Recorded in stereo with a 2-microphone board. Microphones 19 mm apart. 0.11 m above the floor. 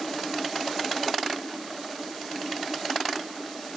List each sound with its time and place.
Only background noise.